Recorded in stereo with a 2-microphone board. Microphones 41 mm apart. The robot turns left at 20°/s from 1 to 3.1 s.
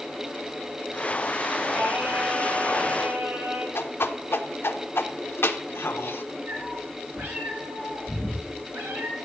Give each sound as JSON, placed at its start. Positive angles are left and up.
{"t": 1.7, "sound": "singing", "side_deg": -55, "distance_m": 6.0}
{"t": 3.8, "sound": "a whoosh", "side_deg": 85, "distance_m": 0.7}
{"t": 6.5, "sound": "a cat meowing", "side_deg": -70, "distance_m": 4.5}